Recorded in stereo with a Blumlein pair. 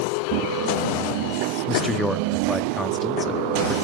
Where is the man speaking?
10° left, 1.4 m.